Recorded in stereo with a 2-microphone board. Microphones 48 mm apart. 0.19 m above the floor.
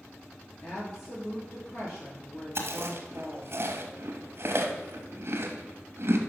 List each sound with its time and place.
0.6 s a woman speaking: 65° left (ahead or behind), 3.5 m
2.5 s chewing: 50° right (ahead or behind), 1.1 m